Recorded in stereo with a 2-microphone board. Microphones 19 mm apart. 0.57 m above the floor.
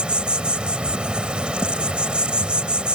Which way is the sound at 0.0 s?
70° right (ahead or behind).